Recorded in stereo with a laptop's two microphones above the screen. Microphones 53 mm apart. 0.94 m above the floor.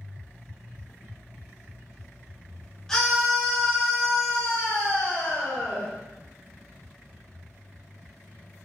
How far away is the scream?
About 2.5 m.